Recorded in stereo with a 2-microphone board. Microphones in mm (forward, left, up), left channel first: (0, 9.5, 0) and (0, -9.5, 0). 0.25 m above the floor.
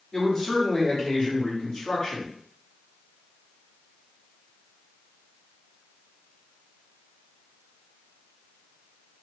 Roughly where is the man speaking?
Left.